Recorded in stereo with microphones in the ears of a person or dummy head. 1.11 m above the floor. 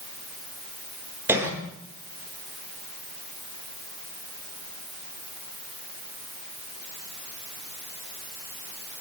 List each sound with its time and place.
1.3 s a cough: 15° right (ahead or behind), 3.5 m